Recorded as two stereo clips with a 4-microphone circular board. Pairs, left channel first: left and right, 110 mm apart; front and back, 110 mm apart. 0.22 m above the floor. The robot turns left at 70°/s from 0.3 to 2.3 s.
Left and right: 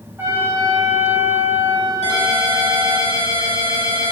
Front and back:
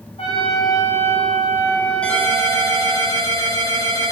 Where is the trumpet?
20° right, 7.5 m; by 3.0 s 160° right, 7.5 m.